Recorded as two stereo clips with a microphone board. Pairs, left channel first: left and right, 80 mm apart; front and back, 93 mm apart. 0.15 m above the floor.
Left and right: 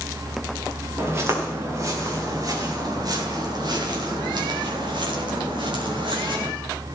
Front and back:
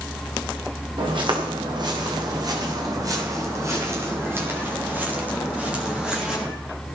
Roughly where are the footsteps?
Behind right.